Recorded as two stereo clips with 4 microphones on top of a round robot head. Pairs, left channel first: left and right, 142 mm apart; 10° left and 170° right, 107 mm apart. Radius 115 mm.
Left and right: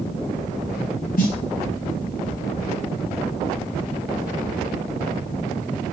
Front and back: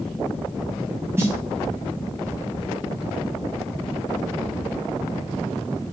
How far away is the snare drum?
About 0.9 m.